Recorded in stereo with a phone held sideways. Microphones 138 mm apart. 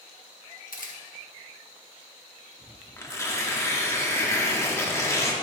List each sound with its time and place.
0.7 s a camera shutter: 80° left, 1.3 m
3.0 s tearing paper: 20° left (ahead or behind), 1.0 m